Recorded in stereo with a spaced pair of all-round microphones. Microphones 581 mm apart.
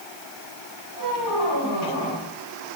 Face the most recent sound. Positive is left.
turn(degrees=40)  # may be behind; listen again after turning